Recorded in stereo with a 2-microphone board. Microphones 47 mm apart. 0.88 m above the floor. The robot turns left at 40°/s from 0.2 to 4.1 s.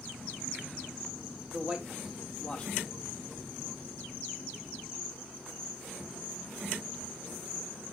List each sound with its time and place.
1.5 s a man speaking: 25° right (ahead or behind), 3 m; by 2.8 s 25° left (ahead or behind), 3 m